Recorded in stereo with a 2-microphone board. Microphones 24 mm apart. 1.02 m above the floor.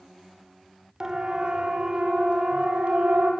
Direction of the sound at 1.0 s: 25° right (ahead or behind).